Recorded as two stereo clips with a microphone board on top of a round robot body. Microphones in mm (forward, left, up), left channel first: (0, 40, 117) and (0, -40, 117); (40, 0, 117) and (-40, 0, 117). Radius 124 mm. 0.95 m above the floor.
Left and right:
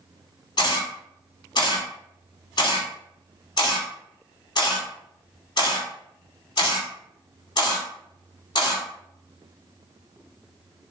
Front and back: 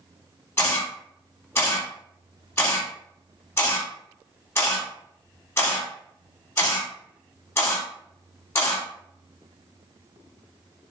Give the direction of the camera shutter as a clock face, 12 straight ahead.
10 o'clock.